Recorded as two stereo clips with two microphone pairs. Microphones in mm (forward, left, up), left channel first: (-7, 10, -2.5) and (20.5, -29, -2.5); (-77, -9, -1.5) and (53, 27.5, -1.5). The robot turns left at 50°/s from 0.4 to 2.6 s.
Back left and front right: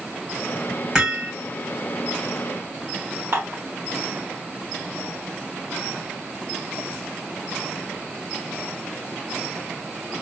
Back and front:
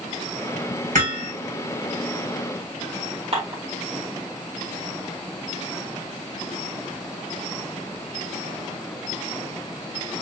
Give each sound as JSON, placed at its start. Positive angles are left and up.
{"t": 0.9, "sound": "hammering", "azimuth_deg": 20, "distance_m": 2.5}
{"t": 3.3, "sound": "dishes clattering", "azimuth_deg": -25, "distance_m": 1.8}